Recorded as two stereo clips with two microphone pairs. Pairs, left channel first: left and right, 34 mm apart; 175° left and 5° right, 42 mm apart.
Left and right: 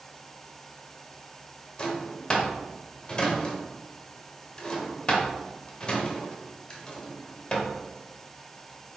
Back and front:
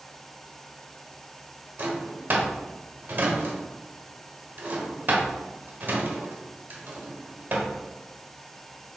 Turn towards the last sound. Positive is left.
turn(degrees=30)